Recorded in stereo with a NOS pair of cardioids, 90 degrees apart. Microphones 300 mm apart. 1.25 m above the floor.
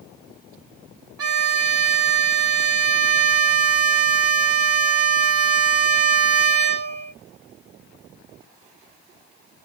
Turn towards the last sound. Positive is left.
turn(degrees=-55)